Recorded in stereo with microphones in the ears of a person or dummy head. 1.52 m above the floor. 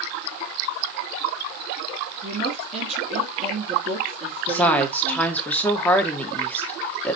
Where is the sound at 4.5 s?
10° left (ahead or behind), 0.9 m.